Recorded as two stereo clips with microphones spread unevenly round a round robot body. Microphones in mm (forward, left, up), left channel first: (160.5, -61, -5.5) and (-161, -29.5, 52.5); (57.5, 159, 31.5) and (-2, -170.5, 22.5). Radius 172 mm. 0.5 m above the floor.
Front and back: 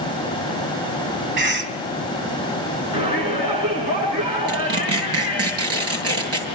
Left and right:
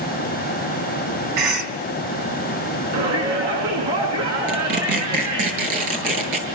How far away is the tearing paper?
About 9 m.